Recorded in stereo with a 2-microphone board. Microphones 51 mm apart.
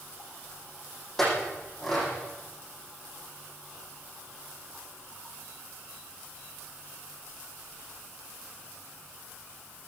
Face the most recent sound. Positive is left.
turn(degrees=5)  # may be behind; listen again after turning